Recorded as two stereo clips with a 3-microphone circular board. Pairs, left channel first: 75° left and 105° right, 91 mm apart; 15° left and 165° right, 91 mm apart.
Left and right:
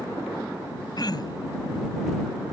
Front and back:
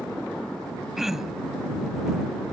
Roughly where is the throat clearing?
Left.